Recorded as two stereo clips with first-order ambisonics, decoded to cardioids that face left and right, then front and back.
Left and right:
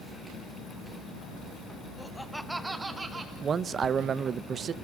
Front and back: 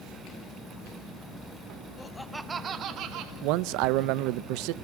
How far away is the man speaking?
About 0.6 m.